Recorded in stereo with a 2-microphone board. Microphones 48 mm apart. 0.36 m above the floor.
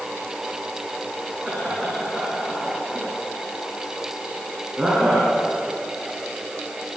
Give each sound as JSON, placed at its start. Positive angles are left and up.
{"t": 1.4, "sound": "laughter", "side_deg": -10, "distance_m": 4.0}